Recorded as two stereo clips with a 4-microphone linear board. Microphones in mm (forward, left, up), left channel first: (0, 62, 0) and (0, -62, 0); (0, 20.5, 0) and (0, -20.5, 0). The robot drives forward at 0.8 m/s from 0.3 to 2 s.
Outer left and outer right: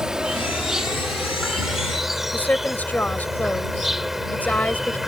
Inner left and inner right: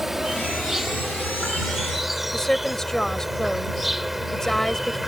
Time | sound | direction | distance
0.0 | an insect | 5° right (ahead or behind) | ?
2.3 | a woman speaking | 15° left (ahead or behind) | ?